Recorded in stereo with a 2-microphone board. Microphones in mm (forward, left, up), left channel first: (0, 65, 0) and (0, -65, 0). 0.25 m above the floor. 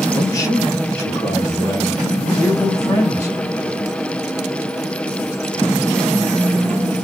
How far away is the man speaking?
About 1.9 m.